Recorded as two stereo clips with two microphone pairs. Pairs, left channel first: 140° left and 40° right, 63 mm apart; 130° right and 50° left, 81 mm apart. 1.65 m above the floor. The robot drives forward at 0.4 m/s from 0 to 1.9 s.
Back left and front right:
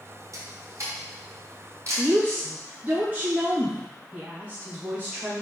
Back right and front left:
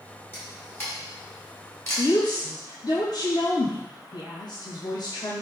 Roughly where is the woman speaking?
Right.